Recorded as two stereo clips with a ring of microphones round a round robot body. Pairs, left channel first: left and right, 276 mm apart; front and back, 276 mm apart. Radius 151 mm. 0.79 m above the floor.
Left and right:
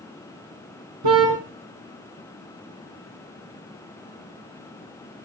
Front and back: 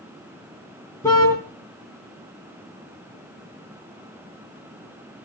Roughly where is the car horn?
Right.